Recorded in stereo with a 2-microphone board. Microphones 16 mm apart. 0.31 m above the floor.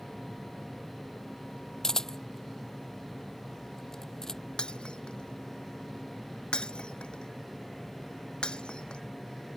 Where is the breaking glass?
75° left (ahead or behind).